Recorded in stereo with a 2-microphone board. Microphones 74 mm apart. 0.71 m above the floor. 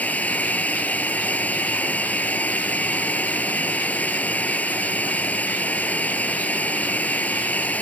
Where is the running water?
20° left (ahead or behind).